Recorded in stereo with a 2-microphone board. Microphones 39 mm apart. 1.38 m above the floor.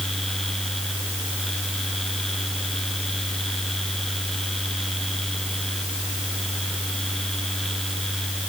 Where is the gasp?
I don't hear a gasp.